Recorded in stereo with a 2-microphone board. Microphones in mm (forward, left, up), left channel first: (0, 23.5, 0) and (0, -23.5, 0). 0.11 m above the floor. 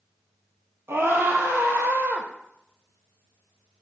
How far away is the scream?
About 4 m.